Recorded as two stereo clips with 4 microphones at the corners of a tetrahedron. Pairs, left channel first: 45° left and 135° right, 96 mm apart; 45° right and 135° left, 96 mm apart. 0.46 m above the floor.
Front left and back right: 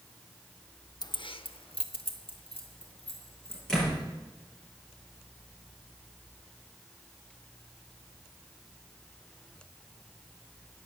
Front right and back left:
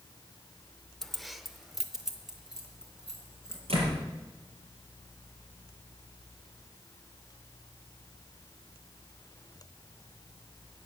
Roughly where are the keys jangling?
Ahead left.